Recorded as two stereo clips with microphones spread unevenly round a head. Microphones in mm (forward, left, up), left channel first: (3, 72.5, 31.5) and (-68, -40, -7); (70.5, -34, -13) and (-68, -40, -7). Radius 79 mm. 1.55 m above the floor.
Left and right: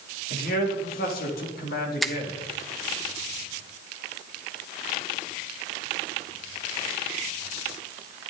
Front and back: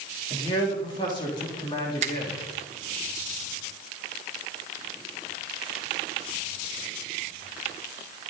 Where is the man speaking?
65° left, 3.5 m.